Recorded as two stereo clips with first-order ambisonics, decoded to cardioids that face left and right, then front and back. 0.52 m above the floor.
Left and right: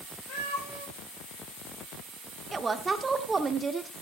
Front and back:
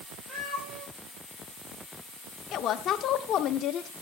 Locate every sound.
0.3 s a cat meowing: 125° left, 9.5 m
2.5 s a woman speaking: 25° right, 0.9 m